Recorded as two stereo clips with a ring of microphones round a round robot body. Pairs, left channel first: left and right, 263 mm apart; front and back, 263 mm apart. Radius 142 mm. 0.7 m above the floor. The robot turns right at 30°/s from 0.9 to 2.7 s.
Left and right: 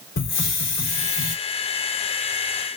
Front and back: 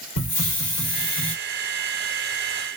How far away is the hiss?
About 2.5 m.